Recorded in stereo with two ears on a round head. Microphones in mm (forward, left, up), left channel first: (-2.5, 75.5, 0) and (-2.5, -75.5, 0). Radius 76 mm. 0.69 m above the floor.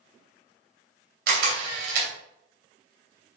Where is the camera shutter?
60° right (ahead or behind), 2.5 m.